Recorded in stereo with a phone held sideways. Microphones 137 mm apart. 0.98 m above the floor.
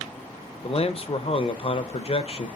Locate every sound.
0.6 s a man speaking: 45° left (ahead or behind), 0.6 m